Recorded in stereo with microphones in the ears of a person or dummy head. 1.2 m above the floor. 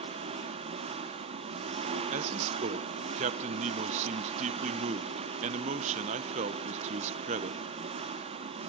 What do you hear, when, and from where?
0.0 s an engine running: 40° right (ahead or behind), 1.1 m
2.1 s a man speaking: 35° right (ahead or behind), 0.8 m